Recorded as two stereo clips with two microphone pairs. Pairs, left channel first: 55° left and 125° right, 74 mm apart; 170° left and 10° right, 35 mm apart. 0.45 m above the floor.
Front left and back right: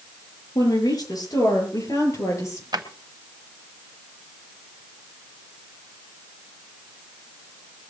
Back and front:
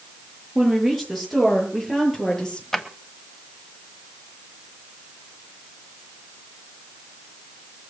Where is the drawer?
110° right, 1.5 m.